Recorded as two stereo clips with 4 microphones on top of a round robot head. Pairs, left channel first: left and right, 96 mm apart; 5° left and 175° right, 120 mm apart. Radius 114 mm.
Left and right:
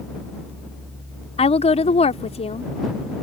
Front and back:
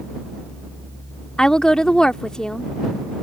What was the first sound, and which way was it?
A woman speaking, 90° left.